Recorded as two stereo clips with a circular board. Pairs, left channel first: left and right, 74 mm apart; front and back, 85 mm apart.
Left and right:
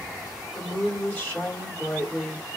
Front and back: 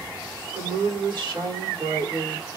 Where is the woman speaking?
160° left, 3 m.